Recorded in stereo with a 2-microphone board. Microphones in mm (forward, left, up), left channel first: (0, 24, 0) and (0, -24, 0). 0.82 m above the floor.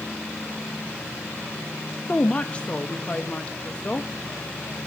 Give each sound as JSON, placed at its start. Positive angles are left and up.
{"t": 2.1, "sound": "a woman speaking", "side_deg": 25, "distance_m": 0.7}